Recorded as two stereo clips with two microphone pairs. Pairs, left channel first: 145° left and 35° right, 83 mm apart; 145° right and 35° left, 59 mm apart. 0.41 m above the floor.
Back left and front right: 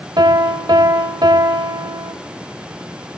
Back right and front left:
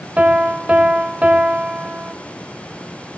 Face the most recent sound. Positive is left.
turn(degrees=-30)